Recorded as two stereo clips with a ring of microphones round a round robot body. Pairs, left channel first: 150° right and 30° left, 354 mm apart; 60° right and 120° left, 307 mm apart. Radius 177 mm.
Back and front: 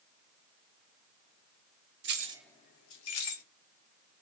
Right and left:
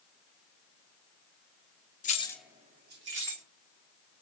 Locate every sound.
2.0 s keys jangling: 5° right, 0.6 m; by 3.4 s 170° left, 1.1 m